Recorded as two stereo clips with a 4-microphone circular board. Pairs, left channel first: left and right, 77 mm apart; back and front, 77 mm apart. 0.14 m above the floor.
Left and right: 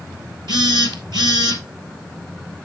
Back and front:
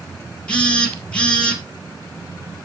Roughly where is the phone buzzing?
Right.